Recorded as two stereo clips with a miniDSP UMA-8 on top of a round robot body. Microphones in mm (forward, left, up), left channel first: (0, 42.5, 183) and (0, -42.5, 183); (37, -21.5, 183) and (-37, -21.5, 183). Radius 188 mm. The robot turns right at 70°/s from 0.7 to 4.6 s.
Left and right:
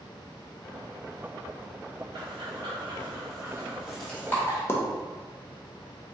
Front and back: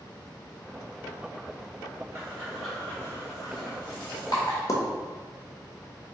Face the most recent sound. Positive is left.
turn(degrees=30)